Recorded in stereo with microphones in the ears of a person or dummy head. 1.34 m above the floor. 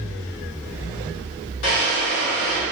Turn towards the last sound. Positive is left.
turn(degrees=70)  # may be behind; listen again after turning